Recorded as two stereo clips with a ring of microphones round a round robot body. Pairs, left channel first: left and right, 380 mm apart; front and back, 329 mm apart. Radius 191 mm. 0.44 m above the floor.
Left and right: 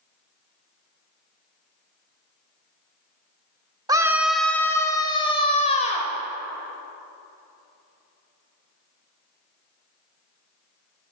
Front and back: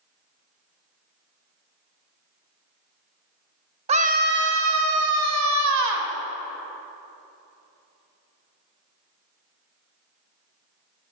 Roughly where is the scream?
Behind right.